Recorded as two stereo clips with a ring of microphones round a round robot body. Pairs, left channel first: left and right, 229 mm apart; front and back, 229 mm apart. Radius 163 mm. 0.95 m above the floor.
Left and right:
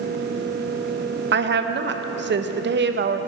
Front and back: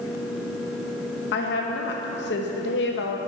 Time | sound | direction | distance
1.3 | a woman speaking | 50° right | 0.6 m